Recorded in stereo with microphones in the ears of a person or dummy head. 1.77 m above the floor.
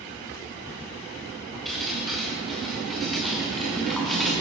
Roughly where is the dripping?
Centre.